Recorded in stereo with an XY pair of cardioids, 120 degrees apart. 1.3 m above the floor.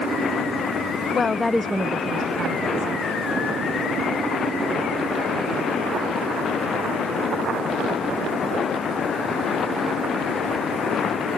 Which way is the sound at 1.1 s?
40° left.